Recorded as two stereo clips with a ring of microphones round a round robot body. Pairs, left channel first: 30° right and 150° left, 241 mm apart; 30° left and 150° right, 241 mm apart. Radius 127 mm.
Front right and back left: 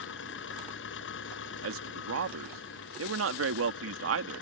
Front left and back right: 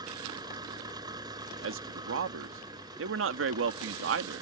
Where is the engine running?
75° right.